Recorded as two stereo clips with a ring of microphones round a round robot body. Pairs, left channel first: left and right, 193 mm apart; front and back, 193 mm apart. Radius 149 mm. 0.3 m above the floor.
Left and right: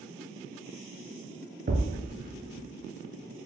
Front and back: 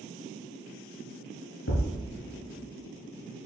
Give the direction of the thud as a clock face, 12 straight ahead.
1 o'clock.